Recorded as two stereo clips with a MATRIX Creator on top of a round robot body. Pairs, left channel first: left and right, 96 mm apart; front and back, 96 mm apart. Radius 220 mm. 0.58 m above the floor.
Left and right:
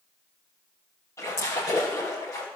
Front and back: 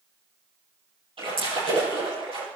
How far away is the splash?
About 6.5 m.